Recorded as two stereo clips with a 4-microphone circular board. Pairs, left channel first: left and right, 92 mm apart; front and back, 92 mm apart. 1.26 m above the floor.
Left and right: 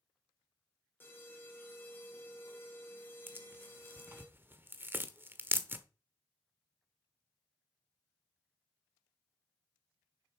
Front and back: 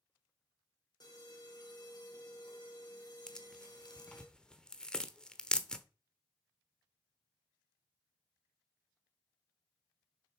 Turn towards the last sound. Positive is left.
turn(degrees=-70)